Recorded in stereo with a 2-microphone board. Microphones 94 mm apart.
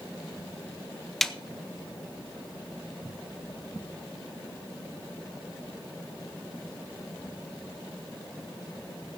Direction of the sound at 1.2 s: 5° left (ahead or behind).